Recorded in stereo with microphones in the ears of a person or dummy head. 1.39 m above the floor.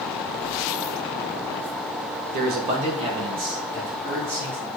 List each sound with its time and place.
2.3 s a man speaking: 55° right (ahead or behind), 1.2 m; by 4.7 s 20° right (ahead or behind), 3.5 m